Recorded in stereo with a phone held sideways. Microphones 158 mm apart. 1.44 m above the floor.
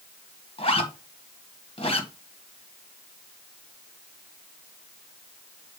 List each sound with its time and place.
0.6 s a zipper: 35° left (ahead or behind), 1.6 m